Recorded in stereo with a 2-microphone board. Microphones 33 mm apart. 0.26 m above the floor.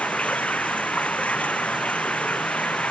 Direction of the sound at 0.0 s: 45° left (ahead or behind).